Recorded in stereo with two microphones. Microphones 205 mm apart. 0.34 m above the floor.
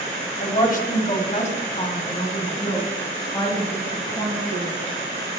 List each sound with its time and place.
0.4 s a woman speaking: 40° left (ahead or behind), 1.8 m; by 4.7 s 20° left (ahead or behind), 5 m